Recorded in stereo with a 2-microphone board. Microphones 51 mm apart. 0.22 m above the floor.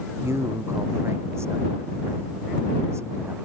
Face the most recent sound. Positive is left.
turn(degrees=-60)  # may be behind; listen again after turning